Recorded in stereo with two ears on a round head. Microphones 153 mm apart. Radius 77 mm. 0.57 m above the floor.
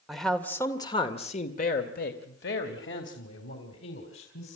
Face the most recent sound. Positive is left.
turn(degrees=80)